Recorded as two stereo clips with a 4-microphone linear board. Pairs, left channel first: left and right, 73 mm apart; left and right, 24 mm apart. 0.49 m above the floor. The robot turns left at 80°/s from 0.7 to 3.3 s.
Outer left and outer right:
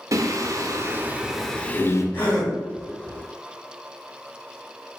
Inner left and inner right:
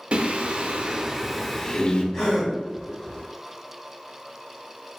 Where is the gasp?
30° left, 1.6 m; by 2.5 s straight ahead, 1.6 m.